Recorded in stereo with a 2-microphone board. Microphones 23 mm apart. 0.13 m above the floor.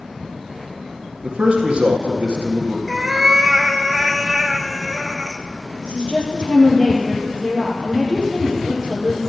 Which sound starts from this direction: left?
A woman speaking, at 5.8 s.